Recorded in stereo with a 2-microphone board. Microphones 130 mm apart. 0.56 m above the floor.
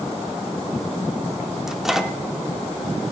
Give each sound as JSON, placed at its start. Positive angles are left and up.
{"t": 1.7, "sound": "a microwave", "side_deg": -5, "distance_m": 0.8}